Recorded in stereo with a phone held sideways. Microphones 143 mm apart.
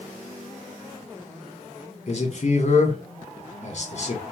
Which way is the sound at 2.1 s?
50° left (ahead or behind).